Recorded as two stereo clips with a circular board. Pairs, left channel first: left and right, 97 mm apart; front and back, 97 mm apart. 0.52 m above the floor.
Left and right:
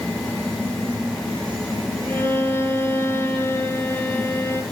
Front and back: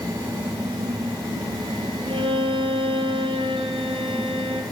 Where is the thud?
I don't hear a thud.